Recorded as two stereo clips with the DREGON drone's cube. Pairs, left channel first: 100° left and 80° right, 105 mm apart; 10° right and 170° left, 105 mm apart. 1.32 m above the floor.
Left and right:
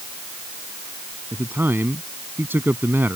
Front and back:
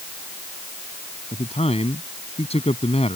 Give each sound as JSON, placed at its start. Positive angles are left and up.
{"t": 1.3, "sound": "a man speaking", "azimuth_deg": -10}